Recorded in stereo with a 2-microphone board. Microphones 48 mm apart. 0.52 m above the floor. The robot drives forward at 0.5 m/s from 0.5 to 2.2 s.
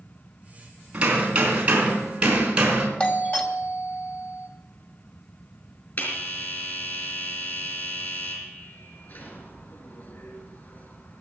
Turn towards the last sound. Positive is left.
turn(degrees=50)  # may be behind; listen again after turning